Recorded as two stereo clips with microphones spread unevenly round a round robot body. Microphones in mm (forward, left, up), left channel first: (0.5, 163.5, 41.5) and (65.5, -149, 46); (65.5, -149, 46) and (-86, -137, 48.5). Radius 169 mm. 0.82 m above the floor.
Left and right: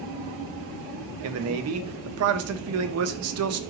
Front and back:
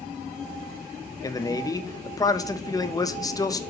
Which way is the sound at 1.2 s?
65° right.